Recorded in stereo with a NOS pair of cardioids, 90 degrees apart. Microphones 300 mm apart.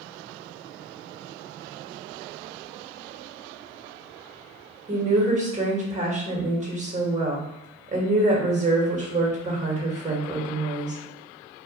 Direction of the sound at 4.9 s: 25° right.